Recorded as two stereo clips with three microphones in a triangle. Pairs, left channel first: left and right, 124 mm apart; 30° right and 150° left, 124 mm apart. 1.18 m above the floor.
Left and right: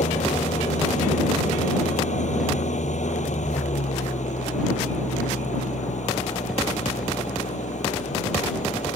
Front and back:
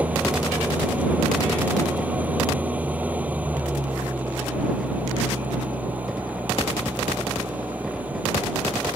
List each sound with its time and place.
0.0 s an engine running: 75° left